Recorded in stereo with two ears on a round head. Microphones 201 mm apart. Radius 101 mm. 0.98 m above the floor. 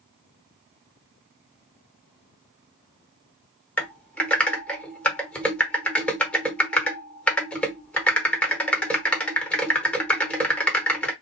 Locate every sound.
3.8 s typing on a keyboard: 5° left (ahead or behind), 0.7 m